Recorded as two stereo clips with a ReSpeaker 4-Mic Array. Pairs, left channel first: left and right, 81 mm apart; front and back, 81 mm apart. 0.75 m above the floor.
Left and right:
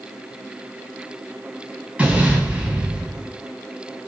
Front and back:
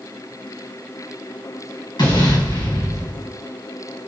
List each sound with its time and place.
2.0 s an explosion: 15° right, 4 m